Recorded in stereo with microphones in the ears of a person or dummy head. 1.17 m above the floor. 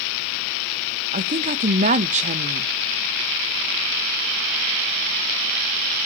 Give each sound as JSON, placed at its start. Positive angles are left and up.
{"t": 1.1, "sound": "a woman speaking", "side_deg": -40, "distance_m": 0.9}